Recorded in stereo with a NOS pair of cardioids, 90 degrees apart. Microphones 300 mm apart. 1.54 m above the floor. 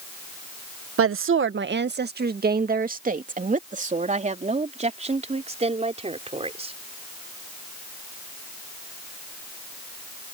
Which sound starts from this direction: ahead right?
A woman speaking, at 1.0 s.